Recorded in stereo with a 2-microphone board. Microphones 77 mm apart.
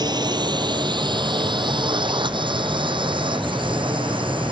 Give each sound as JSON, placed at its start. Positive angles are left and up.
{"t": 0.0, "sound": "a drone", "side_deg": -60}